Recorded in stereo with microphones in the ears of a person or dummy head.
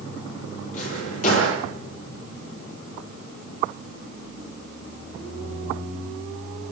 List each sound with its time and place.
0.7 s a drawer: 50° left (ahead or behind), 8.5 m